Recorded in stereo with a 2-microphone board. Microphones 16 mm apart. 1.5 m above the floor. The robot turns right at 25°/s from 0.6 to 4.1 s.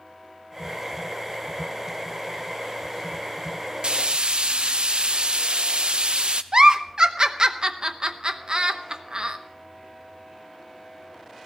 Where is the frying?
60° right (ahead or behind), 0.6 m.